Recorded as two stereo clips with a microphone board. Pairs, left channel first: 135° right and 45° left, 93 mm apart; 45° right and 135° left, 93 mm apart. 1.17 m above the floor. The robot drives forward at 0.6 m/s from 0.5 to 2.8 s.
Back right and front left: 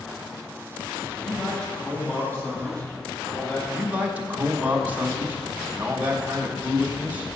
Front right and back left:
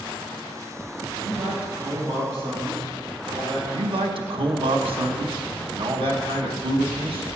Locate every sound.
1.2 s a man speaking: 145° left, 2.5 m; by 3.6 s 155° left, 3 m
3.7 s a man speaking: 115° left, 1.2 m